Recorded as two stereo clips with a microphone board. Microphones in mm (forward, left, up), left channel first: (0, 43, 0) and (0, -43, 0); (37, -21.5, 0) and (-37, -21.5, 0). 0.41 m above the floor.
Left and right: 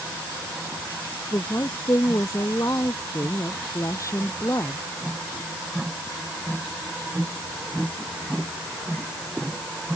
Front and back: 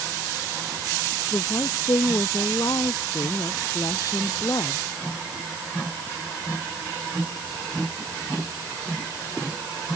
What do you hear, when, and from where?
1.3 s a woman speaking: 35° left